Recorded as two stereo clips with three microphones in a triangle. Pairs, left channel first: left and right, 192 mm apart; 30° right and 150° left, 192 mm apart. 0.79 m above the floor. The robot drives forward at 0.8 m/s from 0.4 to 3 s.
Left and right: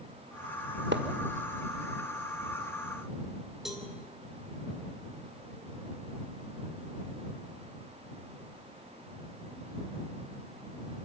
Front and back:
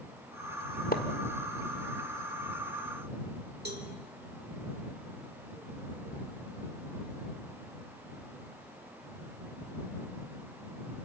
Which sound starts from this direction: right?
A splash, at 0.9 s.